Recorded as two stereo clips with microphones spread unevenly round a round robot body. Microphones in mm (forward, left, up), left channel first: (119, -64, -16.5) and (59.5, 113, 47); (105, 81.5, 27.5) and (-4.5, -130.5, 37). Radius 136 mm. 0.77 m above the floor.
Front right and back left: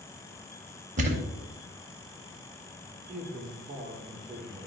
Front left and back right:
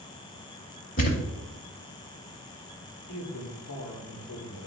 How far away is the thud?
About 0.8 m.